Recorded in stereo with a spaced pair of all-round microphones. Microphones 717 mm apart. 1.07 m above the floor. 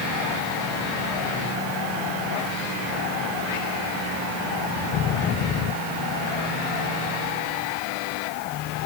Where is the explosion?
I don't hear an explosion.